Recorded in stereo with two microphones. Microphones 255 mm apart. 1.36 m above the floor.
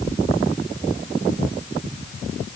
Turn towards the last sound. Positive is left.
No sound to turn to.